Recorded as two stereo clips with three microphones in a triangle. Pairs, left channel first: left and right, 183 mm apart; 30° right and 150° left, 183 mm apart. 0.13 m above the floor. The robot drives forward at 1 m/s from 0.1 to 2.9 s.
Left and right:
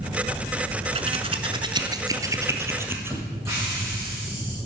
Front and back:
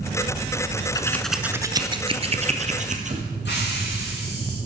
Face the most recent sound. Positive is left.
turn(degrees=-15)